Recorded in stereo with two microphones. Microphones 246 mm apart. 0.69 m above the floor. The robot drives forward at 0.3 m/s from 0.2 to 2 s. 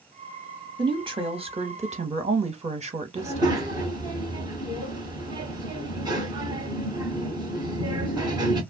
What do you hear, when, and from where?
0.8 s a woman speaking: 20° right (ahead or behind), 0.7 m; by 3.6 s 25° right (ahead or behind), 0.5 m
3.2 s a child speaking: 15° right (ahead or behind), 1.2 m